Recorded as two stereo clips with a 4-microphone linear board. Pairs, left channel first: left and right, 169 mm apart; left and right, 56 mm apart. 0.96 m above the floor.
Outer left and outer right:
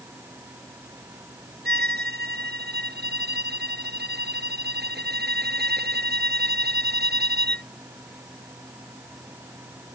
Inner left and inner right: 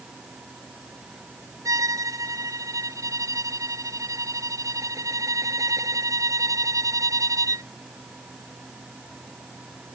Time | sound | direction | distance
1.6 | a violin | 75° right (ahead or behind) | ?